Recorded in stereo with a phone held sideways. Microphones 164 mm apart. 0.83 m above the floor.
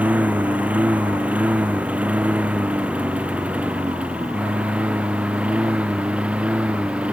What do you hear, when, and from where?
0.0 s a lawn mower: 10° right (ahead or behind); by 7.1 s 5° right (ahead or behind)